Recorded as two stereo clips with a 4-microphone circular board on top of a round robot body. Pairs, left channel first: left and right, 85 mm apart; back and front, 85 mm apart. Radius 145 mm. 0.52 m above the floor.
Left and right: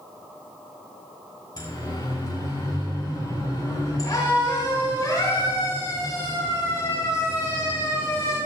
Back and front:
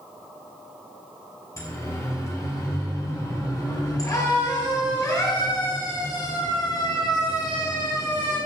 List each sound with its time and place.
1.6 s a siren: 130° left, 6 m; by 8.4 s 145° left, 11 m